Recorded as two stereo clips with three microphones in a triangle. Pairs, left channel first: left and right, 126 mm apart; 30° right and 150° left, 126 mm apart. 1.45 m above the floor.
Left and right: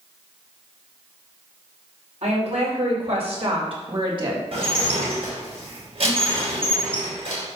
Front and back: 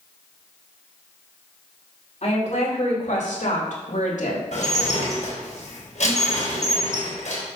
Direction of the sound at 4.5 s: 50° right.